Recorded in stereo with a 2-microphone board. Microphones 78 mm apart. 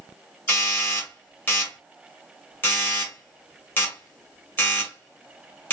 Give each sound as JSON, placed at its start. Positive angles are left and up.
{"t": 0.5, "sound": "a doorbell", "side_deg": 25, "distance_m": 2.0}